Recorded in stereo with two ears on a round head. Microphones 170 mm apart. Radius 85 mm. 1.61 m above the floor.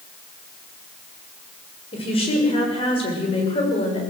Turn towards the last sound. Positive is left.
turn(degrees=30)  # may be behind; listen again after turning